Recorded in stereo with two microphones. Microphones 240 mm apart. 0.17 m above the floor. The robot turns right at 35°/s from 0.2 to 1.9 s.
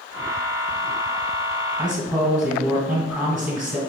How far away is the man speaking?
About 1.2 m.